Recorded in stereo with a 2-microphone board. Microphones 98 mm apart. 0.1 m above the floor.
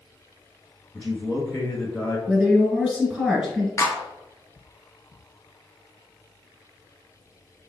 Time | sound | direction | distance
0.9 | a man speaking | 20° left (ahead or behind) | 1.1 m
2.3 | a woman speaking | 10° right (ahead or behind) | 1.7 m
3.8 | a clap | 25° left (ahead or behind) | 1.0 m